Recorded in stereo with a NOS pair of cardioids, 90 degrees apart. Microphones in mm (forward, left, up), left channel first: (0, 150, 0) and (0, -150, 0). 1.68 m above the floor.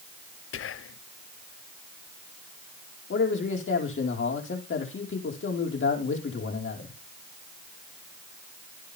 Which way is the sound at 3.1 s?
40° left.